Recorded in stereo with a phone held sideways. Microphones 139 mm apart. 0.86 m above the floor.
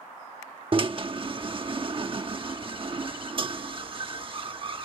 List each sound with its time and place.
0.7 s a drill: 40° right (ahead or behind)